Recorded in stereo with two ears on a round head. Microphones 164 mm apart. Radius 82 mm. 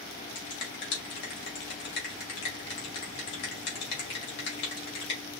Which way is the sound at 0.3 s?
65° left (ahead or behind).